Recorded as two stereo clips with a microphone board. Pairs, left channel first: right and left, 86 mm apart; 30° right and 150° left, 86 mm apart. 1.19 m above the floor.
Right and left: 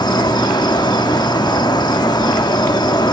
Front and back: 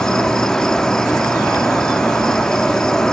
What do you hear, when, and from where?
0.0 s an insect: 110° right, 1.0 m